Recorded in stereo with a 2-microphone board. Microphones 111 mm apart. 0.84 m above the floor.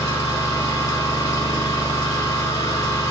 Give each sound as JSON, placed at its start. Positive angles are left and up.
{"t": 0.0, "sound": "an engine running", "side_deg": 35, "distance_m": 4.0}